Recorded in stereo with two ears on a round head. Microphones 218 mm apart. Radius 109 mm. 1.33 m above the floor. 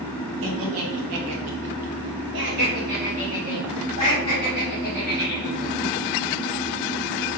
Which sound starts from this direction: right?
Laughter, at 0.4 s.